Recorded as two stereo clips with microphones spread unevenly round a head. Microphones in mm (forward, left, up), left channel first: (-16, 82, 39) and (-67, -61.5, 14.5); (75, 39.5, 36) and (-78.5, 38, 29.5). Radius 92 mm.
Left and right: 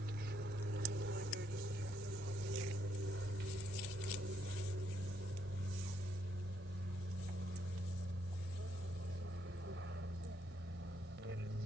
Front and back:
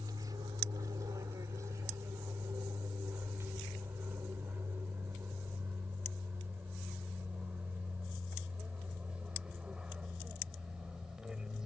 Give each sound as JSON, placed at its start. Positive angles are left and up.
{"t": 0.0, "sound": "an aircraft", "azimuth_deg": -110}